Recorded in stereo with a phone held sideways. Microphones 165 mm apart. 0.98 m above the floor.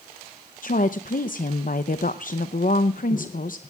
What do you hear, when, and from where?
0.6 s a woman speaking: 55° left (ahead or behind), 0.7 m